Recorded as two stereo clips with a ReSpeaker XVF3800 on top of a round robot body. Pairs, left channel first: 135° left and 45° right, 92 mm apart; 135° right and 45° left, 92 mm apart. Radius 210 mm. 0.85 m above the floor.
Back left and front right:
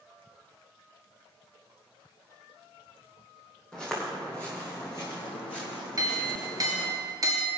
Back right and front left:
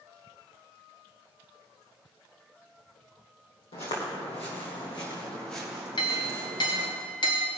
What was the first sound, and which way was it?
Footsteps, 145° right.